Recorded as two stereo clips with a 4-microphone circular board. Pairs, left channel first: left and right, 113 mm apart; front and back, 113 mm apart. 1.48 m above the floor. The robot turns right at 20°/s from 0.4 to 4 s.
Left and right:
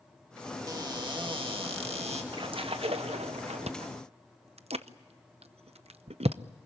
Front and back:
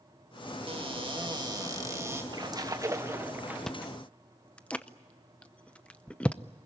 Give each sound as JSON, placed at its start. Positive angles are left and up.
{"t": 0.7, "sound": "a cupboard door", "azimuth_deg": -145, "distance_m": 2.0}
{"t": 2.3, "sound": "a splash", "azimuth_deg": -130, "distance_m": 1.2}
{"t": 3.7, "sound": "chewing", "azimuth_deg": -85, "distance_m": 0.7}